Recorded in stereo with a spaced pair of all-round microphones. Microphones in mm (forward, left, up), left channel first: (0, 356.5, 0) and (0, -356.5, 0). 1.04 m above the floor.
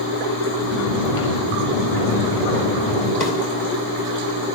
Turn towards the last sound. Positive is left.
turn(degrees=75)  # may be behind; listen again after turning